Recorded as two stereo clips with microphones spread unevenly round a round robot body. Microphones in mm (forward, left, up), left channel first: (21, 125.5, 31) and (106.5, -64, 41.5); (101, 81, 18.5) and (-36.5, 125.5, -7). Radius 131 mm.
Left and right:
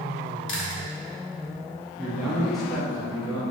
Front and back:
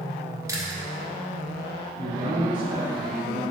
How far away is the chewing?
About 1.5 m.